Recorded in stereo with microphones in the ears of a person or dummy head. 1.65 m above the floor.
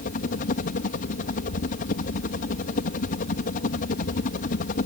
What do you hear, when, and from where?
0.0 s a helicopter: 45° left (ahead or behind)